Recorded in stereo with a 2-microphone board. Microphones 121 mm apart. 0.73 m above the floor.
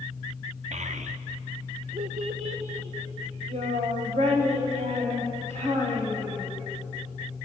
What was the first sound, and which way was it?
A child speaking, 70° right (ahead or behind).